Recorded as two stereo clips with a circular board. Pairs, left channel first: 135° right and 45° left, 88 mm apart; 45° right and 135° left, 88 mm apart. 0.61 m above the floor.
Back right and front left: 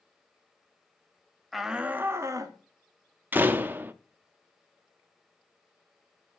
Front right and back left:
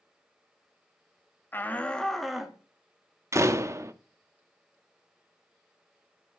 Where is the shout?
45° right, 0.8 m; by 2.6 s 55° left, 1.0 m.